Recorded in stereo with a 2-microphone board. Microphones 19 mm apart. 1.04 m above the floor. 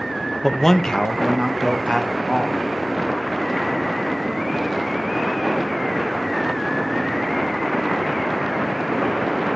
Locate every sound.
0.4 s a man speaking: 10° left (ahead or behind), 0.9 m; by 2.6 s 70° left (ahead or behind), 2 m